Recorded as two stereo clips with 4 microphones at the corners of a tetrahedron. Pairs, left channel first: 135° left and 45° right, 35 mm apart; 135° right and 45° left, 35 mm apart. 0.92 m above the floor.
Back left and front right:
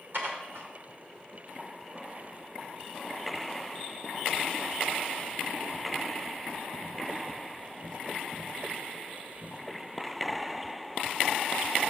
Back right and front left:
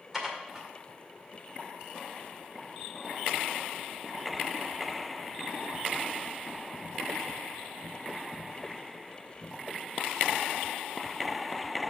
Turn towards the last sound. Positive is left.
turn(degrees=-40)